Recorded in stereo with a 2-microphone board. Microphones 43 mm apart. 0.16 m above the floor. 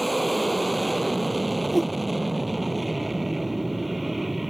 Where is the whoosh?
Centre (ahead or behind).